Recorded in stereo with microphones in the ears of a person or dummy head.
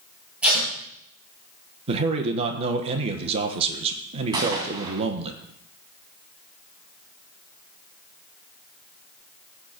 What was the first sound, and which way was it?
Tape being pulled, 10° right (ahead or behind).